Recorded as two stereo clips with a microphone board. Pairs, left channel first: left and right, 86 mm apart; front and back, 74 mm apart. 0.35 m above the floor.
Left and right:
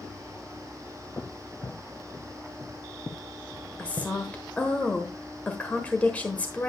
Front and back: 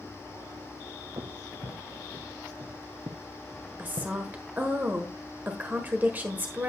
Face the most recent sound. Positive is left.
turn(degrees=145)